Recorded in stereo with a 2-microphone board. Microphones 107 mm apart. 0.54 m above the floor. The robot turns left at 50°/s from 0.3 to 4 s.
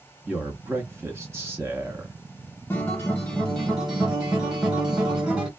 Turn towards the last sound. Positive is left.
turn(degrees=-10)  # may be behind; listen again after turning